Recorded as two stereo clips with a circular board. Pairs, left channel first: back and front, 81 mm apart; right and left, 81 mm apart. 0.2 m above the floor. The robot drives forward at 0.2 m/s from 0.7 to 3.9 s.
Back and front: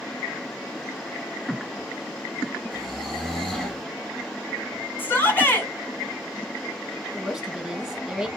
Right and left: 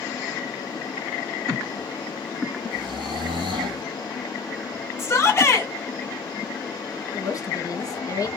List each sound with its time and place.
2.7 s snoring: 95° left, 1.5 m; by 3.8 s 100° left, 1.5 m
5.0 s a shout: 130° right, 2 m
7.1 s a woman speaking: 85° right, 1.4 m